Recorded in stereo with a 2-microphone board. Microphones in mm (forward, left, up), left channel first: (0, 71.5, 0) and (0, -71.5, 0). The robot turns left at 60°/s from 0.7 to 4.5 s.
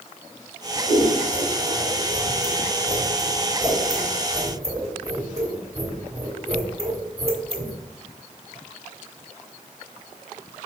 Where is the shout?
I don't hear a shout.